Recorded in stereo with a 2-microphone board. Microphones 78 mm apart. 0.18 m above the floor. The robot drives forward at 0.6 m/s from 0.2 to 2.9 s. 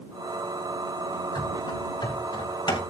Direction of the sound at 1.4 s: 70° left (ahead or behind).